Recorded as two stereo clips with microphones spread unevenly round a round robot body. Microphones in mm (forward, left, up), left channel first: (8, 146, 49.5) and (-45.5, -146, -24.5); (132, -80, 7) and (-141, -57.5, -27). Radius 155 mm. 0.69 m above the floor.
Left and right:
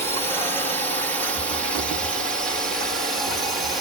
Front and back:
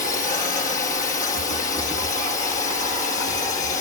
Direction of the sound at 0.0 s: 30° right.